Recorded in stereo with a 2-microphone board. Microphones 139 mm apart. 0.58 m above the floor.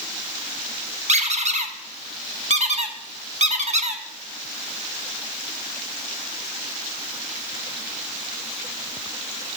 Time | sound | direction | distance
1.1 | a squeak | 55° right (ahead or behind) | 0.6 m